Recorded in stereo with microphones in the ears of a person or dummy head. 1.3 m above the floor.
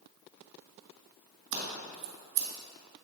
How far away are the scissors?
About 1.8 m.